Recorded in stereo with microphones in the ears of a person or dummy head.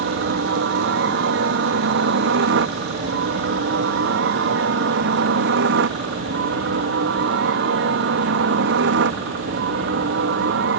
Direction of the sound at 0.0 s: 65° right (ahead or behind).